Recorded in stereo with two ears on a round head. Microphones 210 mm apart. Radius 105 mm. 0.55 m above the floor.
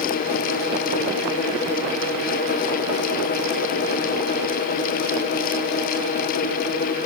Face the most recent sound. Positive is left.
No sound to turn to.